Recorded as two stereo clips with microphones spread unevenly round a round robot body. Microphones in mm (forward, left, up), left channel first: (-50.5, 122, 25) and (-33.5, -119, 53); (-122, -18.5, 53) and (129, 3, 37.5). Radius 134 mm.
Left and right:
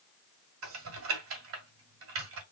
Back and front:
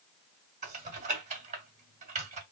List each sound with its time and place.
0.6 s typing on a keyboard: 55° right, 2.0 m